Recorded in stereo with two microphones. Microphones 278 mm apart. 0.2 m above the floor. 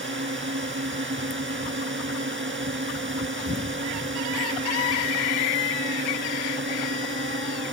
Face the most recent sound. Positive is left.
turn(degrees=-45)  # may be behind; listen again after turning